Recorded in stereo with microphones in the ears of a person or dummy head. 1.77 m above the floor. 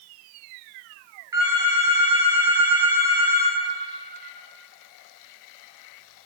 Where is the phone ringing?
25° right (ahead or behind), 1.8 m.